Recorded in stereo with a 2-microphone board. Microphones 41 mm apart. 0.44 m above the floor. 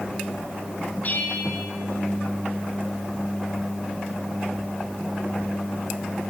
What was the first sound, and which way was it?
A bell, 45° left (ahead or behind).